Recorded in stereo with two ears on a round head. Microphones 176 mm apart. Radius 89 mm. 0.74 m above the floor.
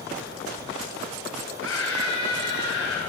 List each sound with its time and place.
1.6 s a scream: 85° left, 5.5 m; by 3.0 s 80° left, 7 m